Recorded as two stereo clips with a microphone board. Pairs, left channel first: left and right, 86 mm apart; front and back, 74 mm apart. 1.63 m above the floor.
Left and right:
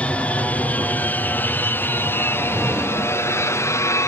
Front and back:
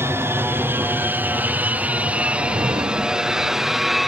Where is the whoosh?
175° right.